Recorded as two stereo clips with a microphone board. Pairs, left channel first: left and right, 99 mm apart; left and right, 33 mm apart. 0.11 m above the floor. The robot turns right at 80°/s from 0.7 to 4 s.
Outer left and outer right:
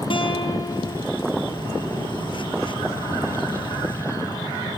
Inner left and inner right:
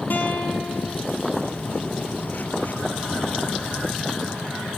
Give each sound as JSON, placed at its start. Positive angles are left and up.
{"t": 0.1, "sound": "a guitar", "side_deg": 60, "distance_m": 2.0}